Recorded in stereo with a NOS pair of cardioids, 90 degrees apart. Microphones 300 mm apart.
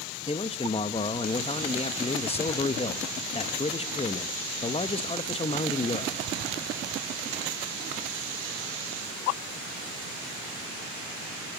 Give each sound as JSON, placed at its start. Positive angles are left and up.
{"t": 0.3, "sound": "a man speaking", "azimuth_deg": 20, "distance_m": 1.0}